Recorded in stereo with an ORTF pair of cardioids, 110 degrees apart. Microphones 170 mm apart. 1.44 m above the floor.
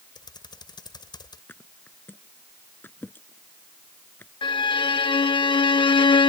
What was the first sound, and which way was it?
Typing on a keyboard, 25° left.